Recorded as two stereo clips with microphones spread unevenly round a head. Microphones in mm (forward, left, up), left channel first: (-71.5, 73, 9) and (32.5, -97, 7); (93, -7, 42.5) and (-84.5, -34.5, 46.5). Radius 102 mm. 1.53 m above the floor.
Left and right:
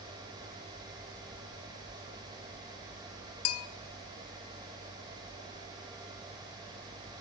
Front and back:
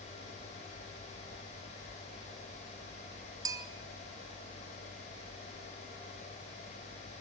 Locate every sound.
3.5 s a bell: 115° left, 0.7 m